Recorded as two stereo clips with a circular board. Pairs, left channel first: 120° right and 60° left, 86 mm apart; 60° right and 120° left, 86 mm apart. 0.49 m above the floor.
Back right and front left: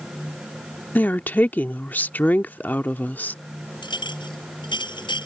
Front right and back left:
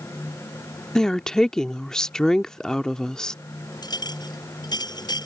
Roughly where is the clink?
Right.